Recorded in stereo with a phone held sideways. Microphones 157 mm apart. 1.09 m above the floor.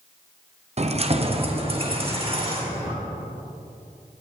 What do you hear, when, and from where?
0.8 s keys jangling: 45° right (ahead or behind), 0.6 m; by 2.9 s 35° right (ahead or behind), 2 m